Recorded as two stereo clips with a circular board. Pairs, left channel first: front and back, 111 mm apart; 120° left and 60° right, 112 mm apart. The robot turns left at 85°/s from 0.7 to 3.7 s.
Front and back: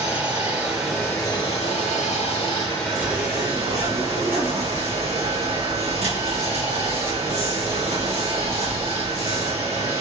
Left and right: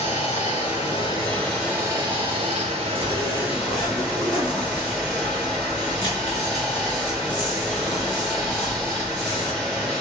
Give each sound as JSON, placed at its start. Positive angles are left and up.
{"t": 0.0, "sound": "running water", "azimuth_deg": 105, "distance_m": 1.3}
{"t": 3.0, "sound": "a zipper", "azimuth_deg": -135, "distance_m": 1.5}